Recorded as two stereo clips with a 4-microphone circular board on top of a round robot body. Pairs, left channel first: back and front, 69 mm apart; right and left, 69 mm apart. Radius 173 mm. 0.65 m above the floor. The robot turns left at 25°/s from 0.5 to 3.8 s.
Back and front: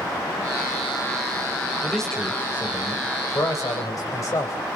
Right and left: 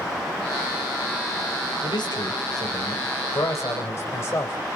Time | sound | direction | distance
1.8 | a man speaking | 95° right | 3.5 m